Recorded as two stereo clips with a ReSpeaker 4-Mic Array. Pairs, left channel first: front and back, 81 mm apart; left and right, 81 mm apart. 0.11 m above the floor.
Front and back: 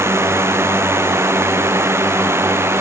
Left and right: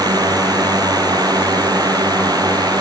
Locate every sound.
0.0 s a drone: 125° right; by 2.8 s 120° right